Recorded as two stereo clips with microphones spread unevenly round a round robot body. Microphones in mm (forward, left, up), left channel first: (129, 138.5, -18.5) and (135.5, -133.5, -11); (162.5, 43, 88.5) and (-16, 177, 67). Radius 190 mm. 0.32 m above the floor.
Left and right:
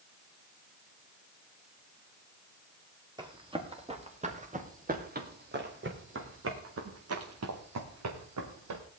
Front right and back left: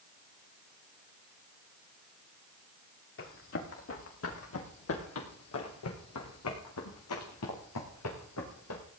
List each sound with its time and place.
3.2 s running footsteps: 15° right, 4.5 m; by 8.8 s 75° right, 4 m